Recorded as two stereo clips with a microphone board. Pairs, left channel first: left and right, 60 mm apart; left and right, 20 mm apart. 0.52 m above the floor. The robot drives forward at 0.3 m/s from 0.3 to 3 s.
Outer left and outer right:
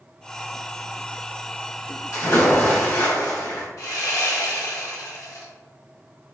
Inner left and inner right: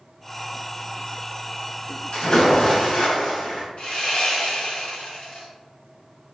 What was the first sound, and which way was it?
A splash, 60° left (ahead or behind).